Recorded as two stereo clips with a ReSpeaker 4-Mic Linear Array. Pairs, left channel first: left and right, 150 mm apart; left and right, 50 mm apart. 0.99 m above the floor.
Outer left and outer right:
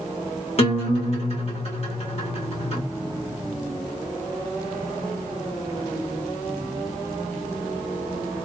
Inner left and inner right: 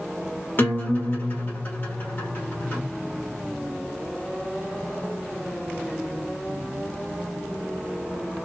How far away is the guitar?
About 1.3 m.